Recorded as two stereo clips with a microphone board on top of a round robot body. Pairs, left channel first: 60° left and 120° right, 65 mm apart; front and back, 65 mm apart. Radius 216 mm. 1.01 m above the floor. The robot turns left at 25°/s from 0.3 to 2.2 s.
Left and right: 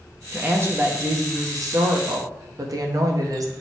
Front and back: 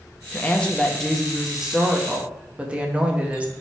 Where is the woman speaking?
65° right, 1.4 m; by 3.5 s 110° right, 1.4 m.